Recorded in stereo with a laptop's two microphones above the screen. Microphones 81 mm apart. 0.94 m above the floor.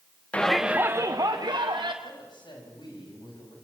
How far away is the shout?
About 0.7 m.